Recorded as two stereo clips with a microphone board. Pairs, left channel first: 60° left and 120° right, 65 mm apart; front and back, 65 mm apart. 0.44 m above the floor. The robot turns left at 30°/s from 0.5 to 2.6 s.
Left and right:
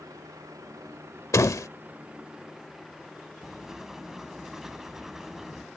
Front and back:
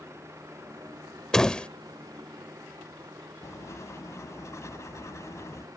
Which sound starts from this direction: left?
A door slam, at 1.3 s.